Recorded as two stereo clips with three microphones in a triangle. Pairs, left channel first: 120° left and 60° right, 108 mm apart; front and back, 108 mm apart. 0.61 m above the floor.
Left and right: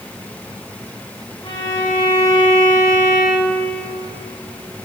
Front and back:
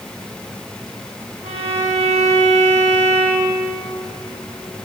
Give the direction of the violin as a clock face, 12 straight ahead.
6 o'clock.